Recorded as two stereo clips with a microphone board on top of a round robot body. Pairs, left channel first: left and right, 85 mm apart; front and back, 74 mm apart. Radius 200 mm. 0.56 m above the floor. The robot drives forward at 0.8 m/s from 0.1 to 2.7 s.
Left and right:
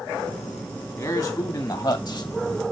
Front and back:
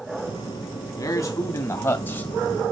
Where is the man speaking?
25° left, 2 m; by 2.3 s 50° left, 1.4 m.